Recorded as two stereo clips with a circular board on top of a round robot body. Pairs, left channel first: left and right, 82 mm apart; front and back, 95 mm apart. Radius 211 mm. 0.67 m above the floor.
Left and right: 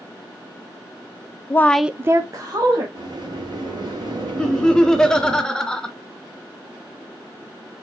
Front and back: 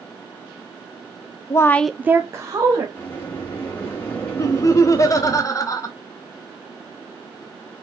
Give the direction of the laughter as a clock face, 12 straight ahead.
12 o'clock.